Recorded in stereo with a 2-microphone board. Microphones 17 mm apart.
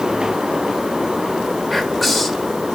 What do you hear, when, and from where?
1.7 s whispering: centre (ahead or behind), 1.3 m